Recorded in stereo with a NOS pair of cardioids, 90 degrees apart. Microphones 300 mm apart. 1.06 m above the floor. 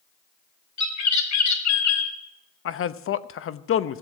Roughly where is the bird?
Ahead left.